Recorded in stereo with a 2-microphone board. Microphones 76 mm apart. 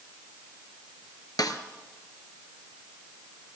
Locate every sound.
1.4 s a snare drum: 60° left (ahead or behind), 1.4 m